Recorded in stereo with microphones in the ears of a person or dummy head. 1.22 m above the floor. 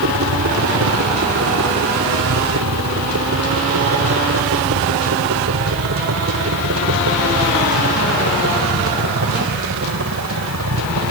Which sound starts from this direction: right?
A helicopter, at 0.0 s.